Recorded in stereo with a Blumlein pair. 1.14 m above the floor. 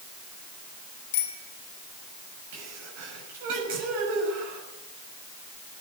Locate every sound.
1.1 s a bicycle bell: 50° left, 3.5 m
2.5 s a sneeze: 50° right, 6.5 m